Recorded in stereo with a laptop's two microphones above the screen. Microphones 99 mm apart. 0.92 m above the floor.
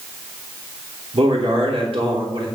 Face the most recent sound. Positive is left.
turn(degrees=-70)  # may be behind; listen again after turning